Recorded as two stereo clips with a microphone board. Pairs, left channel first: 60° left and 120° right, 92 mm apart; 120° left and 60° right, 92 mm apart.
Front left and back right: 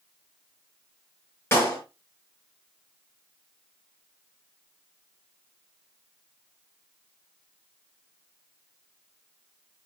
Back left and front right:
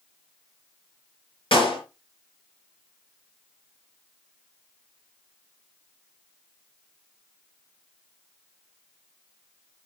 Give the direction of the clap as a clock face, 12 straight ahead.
8 o'clock.